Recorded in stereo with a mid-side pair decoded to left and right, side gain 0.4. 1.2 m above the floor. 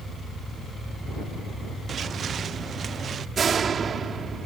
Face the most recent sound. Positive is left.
turn(degrees=-50)